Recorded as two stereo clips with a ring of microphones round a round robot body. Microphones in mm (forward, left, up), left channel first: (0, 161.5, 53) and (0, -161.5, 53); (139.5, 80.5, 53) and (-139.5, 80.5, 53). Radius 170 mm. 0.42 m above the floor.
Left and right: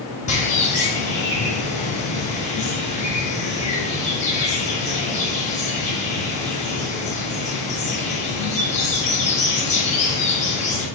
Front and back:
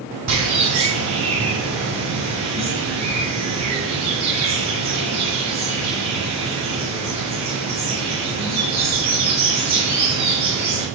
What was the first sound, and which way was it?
A bird, 160° left.